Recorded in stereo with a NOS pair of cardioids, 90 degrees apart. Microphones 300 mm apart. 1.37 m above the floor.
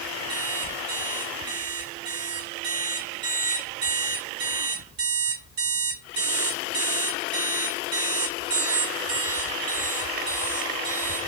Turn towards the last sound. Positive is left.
turn(degrees=-65)